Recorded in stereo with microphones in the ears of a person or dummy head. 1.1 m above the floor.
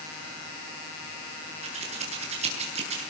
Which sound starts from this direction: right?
Scissors, at 1.6 s.